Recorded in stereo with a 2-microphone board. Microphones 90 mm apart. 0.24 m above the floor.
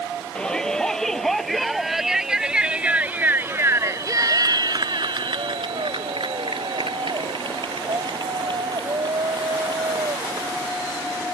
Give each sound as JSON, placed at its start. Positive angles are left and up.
{"t": 0.3, "sound": "a shout", "side_deg": 10}